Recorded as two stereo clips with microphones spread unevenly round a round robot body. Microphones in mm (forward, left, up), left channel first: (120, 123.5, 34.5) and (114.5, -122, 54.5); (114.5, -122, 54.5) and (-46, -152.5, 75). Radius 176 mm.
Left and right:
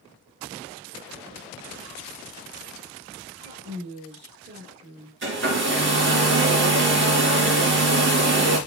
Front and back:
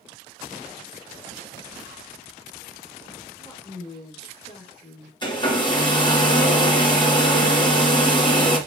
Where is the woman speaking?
50° right, 2 m.